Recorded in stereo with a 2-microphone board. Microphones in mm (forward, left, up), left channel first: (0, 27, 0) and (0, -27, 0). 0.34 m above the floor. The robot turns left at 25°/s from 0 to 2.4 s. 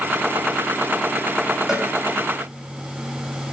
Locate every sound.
1.7 s a cowbell: 10° right (ahead or behind), 2.5 m; by 1.9 s 5° right (ahead or behind), 2.5 m